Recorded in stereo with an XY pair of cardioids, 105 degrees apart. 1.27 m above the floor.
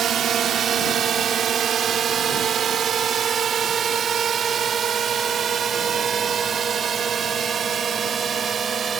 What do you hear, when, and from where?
0.0 s a drone: 60° right; by 9.0 s 45° right